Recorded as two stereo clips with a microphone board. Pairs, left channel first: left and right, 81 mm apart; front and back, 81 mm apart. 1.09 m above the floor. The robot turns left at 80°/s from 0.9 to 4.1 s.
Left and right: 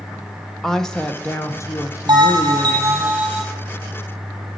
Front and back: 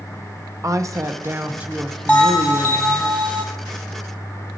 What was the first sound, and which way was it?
A woman speaking, 170° left.